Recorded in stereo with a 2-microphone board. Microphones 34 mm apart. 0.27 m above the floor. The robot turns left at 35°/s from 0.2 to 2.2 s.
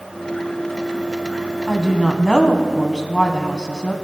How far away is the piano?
I don't hear a piano.